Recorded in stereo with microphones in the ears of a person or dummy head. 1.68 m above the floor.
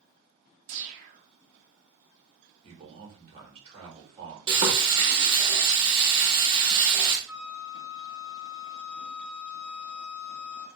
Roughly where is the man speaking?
Right.